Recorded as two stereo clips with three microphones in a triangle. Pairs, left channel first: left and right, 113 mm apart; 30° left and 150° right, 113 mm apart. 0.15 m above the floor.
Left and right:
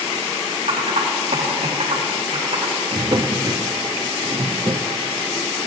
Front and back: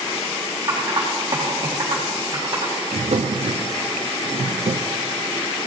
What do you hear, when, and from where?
0.7 s typing on a keyboard: 90° right, 4.5 m
2.9 s a drawer: 140° right, 0.6 m